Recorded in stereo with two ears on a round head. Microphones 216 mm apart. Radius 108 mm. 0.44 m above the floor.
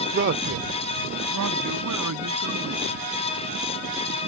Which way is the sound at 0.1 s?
40° right (ahead or behind).